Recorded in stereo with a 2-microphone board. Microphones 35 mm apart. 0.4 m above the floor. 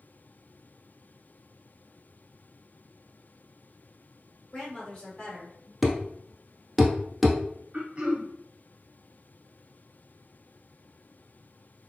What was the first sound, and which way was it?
A woman speaking, 10° left (ahead or behind).